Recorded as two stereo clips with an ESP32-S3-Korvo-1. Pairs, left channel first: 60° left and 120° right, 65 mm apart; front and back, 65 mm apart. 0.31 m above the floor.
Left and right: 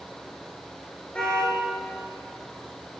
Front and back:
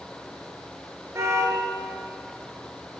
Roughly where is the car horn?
Behind left.